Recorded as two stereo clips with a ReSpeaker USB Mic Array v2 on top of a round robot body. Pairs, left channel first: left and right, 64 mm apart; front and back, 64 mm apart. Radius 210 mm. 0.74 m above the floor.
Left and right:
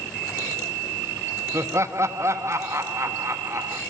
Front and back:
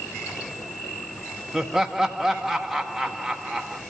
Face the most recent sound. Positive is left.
turn(degrees=-95)